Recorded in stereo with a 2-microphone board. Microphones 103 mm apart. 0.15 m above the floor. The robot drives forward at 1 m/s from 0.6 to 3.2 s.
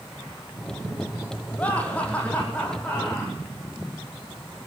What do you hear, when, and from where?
1.6 s laughter: 15° left (ahead or behind), 5.5 m; by 3.4 s 10° left (ahead or behind), 7 m